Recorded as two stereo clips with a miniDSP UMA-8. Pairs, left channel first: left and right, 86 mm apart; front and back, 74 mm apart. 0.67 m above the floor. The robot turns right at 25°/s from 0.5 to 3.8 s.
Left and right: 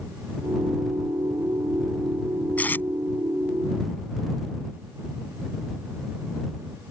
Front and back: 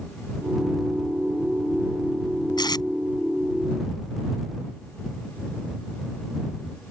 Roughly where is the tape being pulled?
Ahead.